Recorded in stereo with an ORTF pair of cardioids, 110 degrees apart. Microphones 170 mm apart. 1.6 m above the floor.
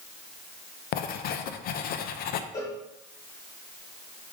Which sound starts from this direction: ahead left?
Writing, at 0.9 s.